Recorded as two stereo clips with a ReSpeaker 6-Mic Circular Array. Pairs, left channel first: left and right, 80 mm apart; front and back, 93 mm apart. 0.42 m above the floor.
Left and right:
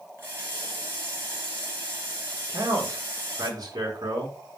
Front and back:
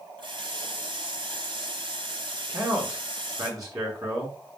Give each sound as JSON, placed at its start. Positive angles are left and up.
{"t": 0.2, "sound": "a running tap", "azimuth_deg": -150, "distance_m": 5.0}
{"t": 2.5, "sound": "a man speaking", "azimuth_deg": -130, "distance_m": 5.5}